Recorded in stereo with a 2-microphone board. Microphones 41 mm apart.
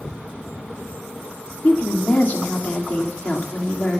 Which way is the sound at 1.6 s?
45° left (ahead or behind).